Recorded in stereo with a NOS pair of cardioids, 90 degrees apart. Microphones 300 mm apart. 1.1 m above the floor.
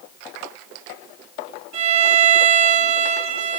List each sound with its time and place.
1.7 s a violin: 70° right, 5 m